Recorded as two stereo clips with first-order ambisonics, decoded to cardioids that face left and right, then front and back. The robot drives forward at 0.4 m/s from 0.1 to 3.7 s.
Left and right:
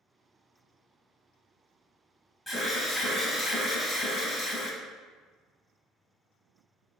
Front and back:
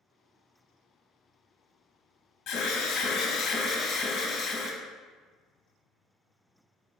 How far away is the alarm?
About 1.0 m.